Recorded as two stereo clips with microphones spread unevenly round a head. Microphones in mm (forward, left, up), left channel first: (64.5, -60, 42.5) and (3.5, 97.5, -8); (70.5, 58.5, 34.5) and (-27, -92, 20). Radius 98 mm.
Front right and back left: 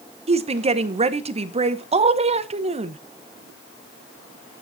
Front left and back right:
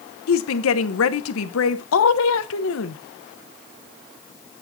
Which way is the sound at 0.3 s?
55° left.